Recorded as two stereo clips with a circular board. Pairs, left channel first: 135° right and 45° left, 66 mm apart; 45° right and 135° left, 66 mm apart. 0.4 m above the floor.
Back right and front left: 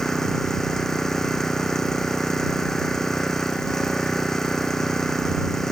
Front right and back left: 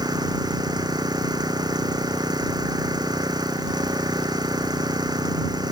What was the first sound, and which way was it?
An engine running, 140° left.